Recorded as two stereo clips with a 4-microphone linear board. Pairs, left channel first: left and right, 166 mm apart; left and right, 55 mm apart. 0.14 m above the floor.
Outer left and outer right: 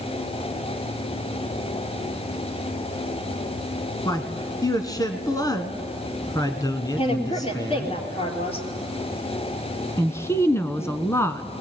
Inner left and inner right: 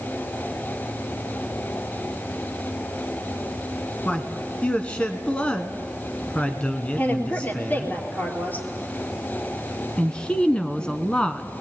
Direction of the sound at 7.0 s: 35° left (ahead or behind).